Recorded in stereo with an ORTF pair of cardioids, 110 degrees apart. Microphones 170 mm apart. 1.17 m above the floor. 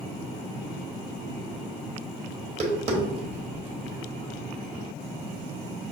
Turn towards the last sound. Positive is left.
turn(degrees=-40)